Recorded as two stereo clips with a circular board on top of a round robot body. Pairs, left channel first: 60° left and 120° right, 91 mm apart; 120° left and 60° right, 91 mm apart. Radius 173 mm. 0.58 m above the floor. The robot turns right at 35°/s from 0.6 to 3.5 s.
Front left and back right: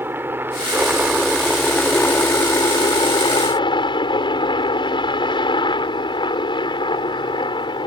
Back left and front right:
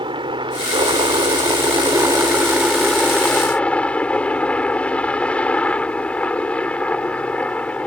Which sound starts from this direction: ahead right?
A helicopter, at 0.0 s.